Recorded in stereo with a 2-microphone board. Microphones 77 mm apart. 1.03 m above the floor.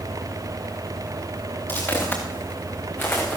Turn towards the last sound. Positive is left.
turn(degrees=30)  # may be behind; listen again after turning